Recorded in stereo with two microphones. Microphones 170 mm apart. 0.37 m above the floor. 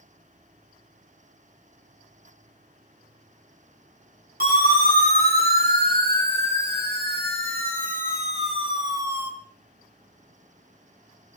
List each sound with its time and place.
4.4 s a siren: 60° right (ahead or behind), 5.5 m; by 9.3 s 10° right (ahead or behind), 2.5 m